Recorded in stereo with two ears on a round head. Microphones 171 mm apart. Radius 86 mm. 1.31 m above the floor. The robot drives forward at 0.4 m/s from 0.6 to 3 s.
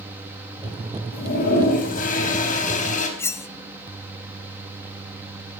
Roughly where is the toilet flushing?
Left.